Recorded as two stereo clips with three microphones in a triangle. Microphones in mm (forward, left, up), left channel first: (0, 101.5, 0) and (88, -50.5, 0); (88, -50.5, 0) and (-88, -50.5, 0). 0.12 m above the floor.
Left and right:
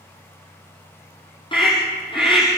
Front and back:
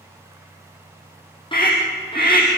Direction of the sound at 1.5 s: 60° left.